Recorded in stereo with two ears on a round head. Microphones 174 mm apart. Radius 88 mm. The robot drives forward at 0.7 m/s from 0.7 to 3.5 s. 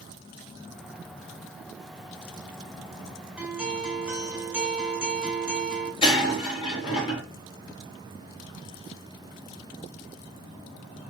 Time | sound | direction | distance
3.4 | a guitar | 5° right (ahead or behind) | 3 m
6.0 | breaking glass | 30° left (ahead or behind) | 5 m